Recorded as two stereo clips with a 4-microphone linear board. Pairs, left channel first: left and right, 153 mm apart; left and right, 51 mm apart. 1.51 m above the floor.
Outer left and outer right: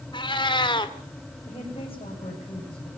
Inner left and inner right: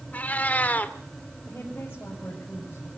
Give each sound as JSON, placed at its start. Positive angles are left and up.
{"t": 0.1, "sound": "a cat meowing", "side_deg": 30, "distance_m": 1.9}
{"t": 1.5, "sound": "a woman speaking", "side_deg": 40, "distance_m": 8.0}